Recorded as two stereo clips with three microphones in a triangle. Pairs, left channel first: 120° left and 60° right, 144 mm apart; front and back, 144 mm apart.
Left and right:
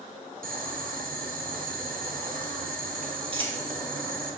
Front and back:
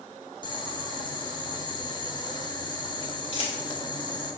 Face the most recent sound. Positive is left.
turn(degrees=-25)